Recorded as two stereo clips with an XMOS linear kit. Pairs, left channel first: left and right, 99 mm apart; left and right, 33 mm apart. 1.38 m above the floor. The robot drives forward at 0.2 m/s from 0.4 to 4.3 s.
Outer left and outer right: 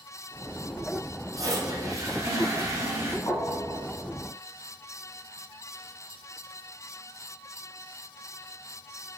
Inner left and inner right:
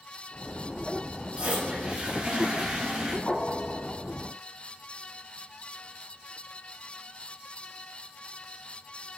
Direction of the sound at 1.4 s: 35° right (ahead or behind).